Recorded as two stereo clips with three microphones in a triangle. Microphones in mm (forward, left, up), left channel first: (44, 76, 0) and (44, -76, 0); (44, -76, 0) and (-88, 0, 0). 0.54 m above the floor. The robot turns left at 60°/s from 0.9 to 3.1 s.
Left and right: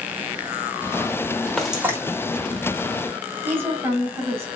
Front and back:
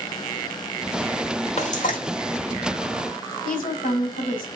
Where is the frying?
5° left, 1.3 m; by 2.0 s 20° right, 1.3 m.